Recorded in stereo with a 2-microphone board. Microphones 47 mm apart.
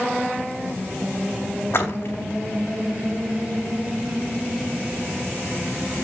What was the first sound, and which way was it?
A splash, 60° left (ahead or behind).